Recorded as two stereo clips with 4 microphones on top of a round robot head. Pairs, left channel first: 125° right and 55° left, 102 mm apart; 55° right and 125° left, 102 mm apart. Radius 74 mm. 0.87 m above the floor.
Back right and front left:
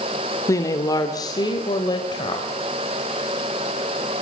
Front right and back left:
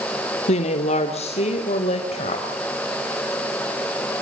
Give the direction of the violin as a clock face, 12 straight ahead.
I don't hear a violin.